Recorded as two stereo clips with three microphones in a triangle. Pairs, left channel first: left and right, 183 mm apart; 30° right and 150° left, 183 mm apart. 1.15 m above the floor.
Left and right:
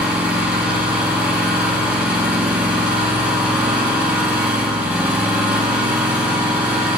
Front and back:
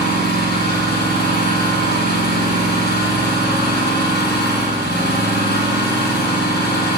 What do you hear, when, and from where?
0.0 s an engine running: 10° right, 4 m